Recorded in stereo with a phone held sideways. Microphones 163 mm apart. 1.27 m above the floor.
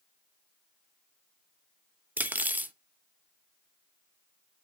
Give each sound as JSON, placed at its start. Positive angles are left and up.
{"t": 2.2, "sound": "cutlery clinking", "side_deg": -10, "distance_m": 0.6}